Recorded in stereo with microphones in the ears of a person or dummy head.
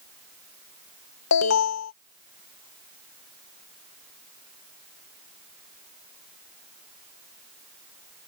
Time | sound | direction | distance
1.3 | an alarm | 75° left (ahead or behind) | ?